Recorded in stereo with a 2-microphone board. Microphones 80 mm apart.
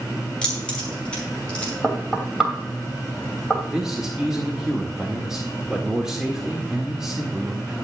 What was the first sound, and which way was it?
Keys jangling, 15° left (ahead or behind).